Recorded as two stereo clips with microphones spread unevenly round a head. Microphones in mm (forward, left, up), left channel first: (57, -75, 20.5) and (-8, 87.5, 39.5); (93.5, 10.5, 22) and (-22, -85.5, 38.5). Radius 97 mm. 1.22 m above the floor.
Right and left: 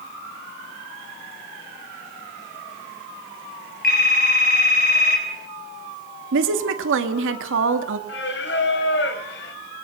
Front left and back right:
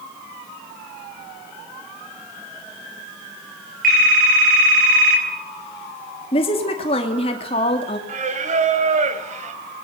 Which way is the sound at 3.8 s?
115° right.